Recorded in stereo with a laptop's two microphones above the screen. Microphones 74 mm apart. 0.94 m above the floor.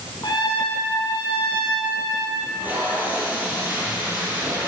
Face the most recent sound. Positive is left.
turn(degrees=-25)  # may be behind; listen again after turning